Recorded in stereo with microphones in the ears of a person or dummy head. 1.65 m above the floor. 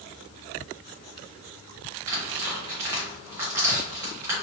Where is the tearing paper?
5° right (ahead or behind), 0.7 m.